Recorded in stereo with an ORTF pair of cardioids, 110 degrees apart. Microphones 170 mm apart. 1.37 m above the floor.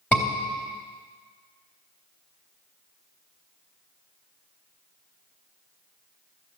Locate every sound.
0.1 s a scream: straight ahead, 3.5 m